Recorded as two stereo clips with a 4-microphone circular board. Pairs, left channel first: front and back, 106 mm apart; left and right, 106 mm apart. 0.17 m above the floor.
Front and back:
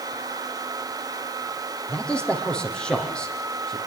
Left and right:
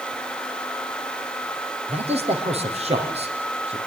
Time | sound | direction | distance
1.9 | a man speaking | 80° right | 5.5 m